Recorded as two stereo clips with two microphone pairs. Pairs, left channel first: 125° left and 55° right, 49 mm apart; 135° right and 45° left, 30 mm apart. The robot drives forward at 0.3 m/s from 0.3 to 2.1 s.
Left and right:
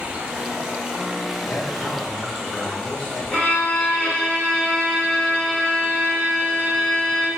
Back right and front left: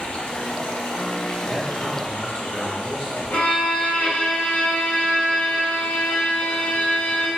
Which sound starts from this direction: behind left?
A man speaking, at 1.4 s.